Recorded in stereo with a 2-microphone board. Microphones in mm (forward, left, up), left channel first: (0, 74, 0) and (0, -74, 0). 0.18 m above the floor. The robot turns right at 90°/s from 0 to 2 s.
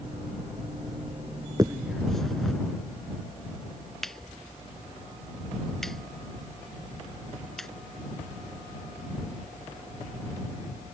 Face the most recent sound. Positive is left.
turn(degrees=0)  # may be behind; listen again after turning